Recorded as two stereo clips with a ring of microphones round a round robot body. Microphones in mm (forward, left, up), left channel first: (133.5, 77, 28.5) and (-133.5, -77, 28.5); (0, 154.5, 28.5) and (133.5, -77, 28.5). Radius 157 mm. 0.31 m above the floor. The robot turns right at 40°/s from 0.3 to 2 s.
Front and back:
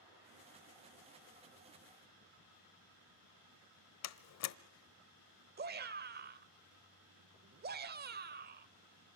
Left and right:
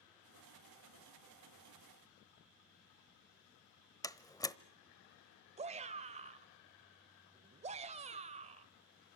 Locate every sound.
4.0 s a door slam: 45° left, 1.0 m
5.6 s a shout: 115° right, 1.0 m